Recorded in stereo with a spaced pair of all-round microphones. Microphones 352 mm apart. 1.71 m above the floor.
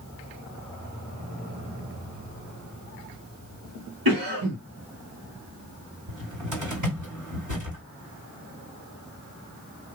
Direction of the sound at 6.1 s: 55° right (ahead or behind).